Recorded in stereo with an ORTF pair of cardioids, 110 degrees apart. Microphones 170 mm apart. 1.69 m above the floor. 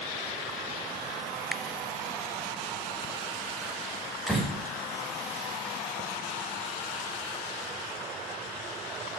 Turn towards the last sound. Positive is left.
turn(degrees=0)